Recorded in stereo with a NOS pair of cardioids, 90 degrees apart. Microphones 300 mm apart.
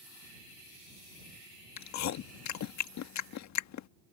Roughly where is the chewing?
Left.